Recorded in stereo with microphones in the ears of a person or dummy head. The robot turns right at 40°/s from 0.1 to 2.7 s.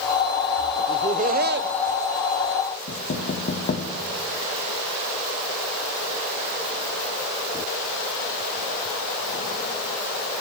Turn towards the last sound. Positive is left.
turn(degrees=50)  # may be behind; listen again after turning